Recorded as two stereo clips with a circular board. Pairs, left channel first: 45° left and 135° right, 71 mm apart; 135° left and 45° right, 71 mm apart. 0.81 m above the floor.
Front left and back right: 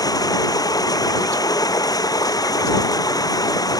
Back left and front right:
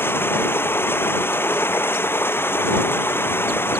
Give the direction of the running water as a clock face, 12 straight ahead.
9 o'clock.